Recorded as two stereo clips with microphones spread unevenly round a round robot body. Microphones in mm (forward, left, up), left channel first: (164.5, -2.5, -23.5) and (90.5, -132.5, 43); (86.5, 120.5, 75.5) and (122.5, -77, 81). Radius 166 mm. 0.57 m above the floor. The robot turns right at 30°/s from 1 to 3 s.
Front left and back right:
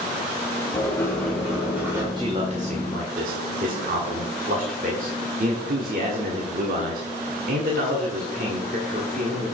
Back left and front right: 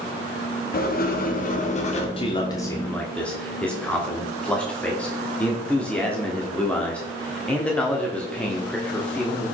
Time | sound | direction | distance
0.7 | writing | 115° left | 1.2 m
2.2 | a man speaking | 155° left | 1.3 m